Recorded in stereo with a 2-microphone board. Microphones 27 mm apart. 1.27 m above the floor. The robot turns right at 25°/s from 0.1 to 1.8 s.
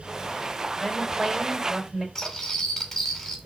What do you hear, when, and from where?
0.8 s a woman speaking: 5° right (ahead or behind), 5.5 m; by 2.0 s 30° right (ahead or behind), 5.5 m
2.1 s cutlery clinking: 10° left (ahead or behind), 3 m